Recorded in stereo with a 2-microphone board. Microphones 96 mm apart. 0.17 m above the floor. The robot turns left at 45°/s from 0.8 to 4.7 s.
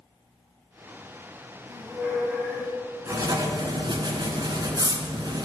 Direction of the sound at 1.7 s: 145° right.